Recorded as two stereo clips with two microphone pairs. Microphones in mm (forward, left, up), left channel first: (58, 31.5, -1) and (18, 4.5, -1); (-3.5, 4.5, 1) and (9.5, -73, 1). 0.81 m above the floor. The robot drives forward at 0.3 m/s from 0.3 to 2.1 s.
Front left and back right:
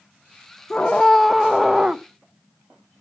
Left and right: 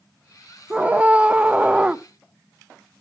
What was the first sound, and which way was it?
A scream, 25° right.